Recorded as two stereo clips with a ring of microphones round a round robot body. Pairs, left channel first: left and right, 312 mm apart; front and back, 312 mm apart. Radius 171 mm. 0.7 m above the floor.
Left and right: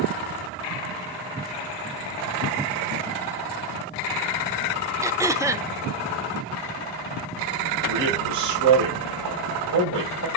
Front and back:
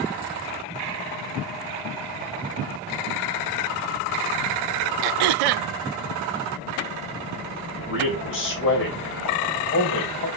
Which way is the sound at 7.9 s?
50° right.